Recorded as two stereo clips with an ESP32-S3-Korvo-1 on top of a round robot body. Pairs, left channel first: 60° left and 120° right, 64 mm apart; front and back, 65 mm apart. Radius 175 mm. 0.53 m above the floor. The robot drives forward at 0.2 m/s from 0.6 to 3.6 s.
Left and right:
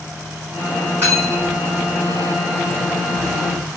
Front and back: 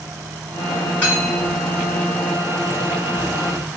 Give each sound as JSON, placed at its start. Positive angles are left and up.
{"t": 1.0, "sound": "cutlery clinking", "azimuth_deg": -60, "distance_m": 1.6}